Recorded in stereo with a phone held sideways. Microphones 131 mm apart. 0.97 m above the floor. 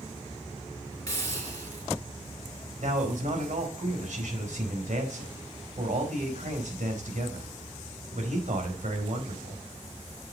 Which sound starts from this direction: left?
A hiss, at 1.1 s.